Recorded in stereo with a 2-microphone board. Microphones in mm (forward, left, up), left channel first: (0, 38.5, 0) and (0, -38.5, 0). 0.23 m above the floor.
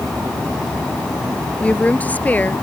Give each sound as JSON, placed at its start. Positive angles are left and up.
{"t": 1.6, "sound": "a woman speaking", "side_deg": 20}